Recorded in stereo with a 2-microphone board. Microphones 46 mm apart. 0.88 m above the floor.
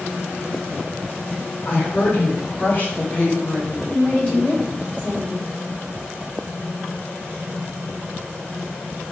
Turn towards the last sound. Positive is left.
turn(degrees=30)  # may be behind; listen again after turning